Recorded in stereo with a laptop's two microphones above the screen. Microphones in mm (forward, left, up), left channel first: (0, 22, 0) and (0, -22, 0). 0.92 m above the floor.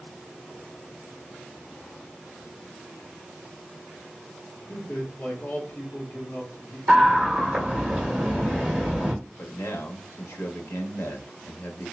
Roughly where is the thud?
I don't hear a thud.